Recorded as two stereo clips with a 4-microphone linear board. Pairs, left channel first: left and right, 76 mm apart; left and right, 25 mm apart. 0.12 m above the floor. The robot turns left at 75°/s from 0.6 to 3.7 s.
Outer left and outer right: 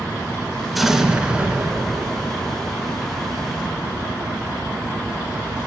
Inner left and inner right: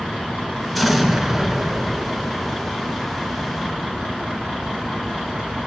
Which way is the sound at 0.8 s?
Centre (ahead or behind).